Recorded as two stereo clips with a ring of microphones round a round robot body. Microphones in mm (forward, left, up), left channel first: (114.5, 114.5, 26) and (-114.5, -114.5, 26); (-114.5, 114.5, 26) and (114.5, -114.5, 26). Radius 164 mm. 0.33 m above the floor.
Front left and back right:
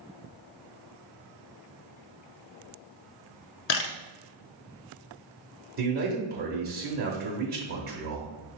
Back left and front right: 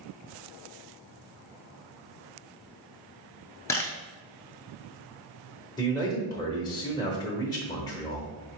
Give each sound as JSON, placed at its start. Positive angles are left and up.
{"t": 3.7, "sound": "a camera shutter", "azimuth_deg": 55, "distance_m": 0.8}
{"t": 5.8, "sound": "a man speaking", "azimuth_deg": -160, "distance_m": 1.0}